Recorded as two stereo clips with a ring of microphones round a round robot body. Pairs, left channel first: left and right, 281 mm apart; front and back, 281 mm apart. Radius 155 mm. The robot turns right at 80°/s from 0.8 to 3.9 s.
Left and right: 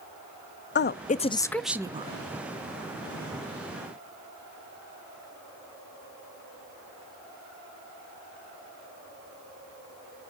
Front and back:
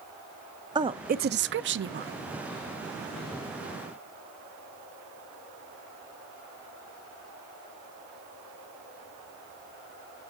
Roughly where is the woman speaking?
Behind left.